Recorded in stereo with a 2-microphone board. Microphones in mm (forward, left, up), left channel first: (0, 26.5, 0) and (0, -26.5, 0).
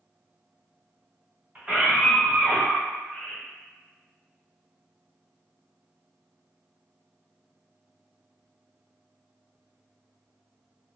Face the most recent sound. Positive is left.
turn(degrees=20)  # may be behind; listen again after turning